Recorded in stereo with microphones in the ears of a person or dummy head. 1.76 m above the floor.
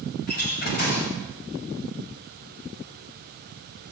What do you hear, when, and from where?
0.3 s a door slam: 50° left (ahead or behind), 7 m